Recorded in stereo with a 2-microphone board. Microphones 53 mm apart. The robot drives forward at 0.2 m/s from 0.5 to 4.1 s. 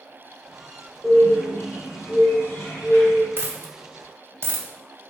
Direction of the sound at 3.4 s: 45° right (ahead or behind).